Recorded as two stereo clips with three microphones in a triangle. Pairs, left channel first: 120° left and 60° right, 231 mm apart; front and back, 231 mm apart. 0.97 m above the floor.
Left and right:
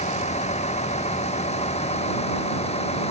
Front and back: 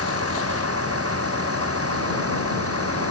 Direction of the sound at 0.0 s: Straight behind.